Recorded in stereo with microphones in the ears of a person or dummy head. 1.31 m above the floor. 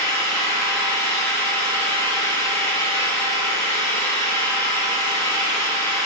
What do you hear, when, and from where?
0.0 s an engine running: 15° left (ahead or behind), 1.1 m